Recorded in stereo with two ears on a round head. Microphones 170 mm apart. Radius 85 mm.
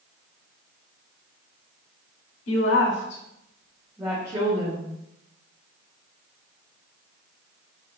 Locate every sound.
2.5 s a woman speaking: 80° left, 0.9 m; by 4.9 s 35° right (ahead or behind), 1.1 m